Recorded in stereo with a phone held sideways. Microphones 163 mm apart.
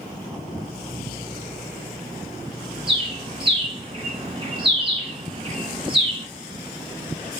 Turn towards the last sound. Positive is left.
turn(degrees=-30)  # may be behind; listen again after turning